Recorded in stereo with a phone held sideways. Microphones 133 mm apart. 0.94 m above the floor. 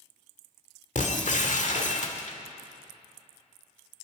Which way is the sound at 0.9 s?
65° left (ahead or behind).